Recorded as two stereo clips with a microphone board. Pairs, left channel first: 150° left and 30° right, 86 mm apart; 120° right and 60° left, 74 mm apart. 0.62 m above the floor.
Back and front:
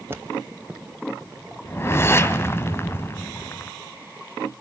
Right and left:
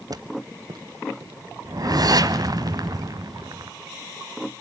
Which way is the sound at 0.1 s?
35° left.